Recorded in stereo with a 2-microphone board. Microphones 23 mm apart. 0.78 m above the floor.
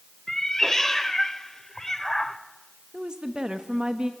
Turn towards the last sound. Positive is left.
turn(degrees=-35)  # may be behind; listen again after turning